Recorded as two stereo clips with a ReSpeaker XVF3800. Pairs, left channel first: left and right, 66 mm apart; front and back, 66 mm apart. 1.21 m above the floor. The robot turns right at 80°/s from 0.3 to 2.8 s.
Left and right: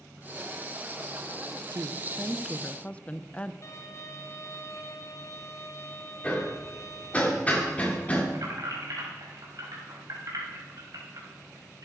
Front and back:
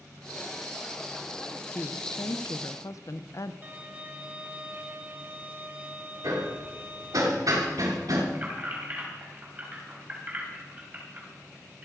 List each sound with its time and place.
1.7 s a woman speaking: 65° right, 0.7 m; by 3.5 s 20° left, 0.7 m
3.6 s a violin: 120° left, 1.3 m
6.2 s hammering: 155° left, 3 m
8.3 s keys jangling: 115° right, 4.5 m